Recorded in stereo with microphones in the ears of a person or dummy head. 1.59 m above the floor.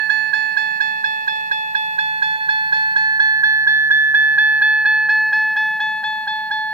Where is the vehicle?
55° right (ahead or behind); by 6.7 s 10° left (ahead or behind).